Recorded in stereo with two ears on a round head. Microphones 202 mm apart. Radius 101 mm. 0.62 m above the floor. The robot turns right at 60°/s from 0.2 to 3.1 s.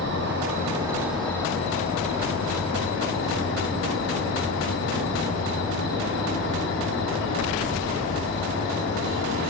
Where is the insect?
60° right, 6 m; by 9.5 s 115° left, 6 m.